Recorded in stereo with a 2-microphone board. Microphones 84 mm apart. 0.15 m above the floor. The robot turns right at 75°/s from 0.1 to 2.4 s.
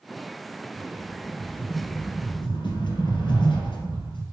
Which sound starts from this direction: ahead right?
A rattle, at 0.7 s.